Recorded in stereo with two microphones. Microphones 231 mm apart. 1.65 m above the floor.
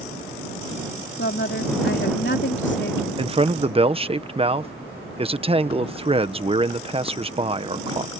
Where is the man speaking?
25° right (ahead or behind).